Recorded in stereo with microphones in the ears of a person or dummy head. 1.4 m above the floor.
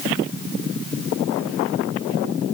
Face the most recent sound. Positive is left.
No sound to turn to.